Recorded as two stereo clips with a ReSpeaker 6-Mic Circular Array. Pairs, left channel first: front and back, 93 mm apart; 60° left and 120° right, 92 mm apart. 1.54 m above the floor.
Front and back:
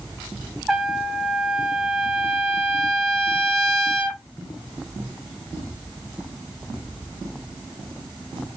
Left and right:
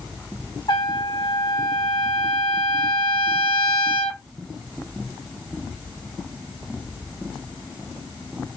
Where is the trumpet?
90° left, 1.0 m.